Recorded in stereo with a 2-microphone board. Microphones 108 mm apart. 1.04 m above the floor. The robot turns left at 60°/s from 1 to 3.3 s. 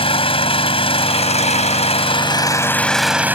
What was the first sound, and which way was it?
An engine running, 120° left.